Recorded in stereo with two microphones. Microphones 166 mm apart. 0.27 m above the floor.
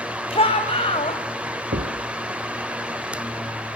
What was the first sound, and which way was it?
A shout, 35° left (ahead or behind).